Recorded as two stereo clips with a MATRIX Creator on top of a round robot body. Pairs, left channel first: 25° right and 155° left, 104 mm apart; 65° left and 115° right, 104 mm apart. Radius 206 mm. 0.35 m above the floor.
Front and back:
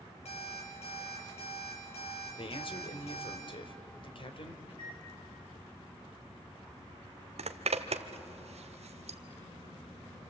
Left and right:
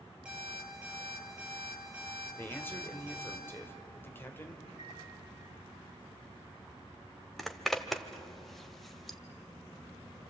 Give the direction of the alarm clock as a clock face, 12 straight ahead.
1 o'clock.